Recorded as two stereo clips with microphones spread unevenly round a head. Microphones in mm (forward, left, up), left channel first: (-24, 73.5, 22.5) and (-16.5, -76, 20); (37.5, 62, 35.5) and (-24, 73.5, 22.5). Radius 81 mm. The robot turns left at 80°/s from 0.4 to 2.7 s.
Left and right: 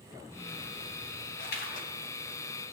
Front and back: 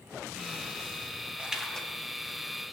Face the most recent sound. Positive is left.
turn(degrees=-10)